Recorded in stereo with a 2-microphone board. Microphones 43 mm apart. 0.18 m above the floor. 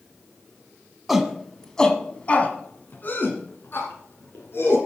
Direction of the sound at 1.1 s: 5° right (ahead or behind).